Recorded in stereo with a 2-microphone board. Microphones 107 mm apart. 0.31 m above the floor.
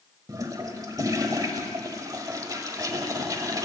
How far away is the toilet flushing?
About 1.1 m.